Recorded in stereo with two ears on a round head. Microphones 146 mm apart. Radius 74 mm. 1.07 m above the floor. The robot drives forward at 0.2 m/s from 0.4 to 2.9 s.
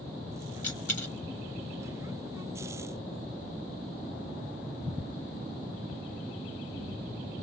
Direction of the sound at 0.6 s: 15° left (ahead or behind).